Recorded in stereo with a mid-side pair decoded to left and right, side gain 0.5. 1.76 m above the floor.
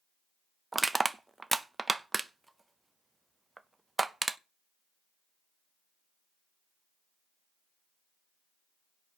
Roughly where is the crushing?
Ahead.